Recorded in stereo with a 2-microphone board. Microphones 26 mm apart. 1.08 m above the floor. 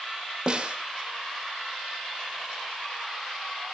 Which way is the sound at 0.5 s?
35° right (ahead or behind).